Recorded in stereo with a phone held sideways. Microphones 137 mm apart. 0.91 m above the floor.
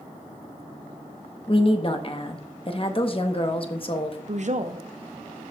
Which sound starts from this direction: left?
A woman speaking, at 1.5 s.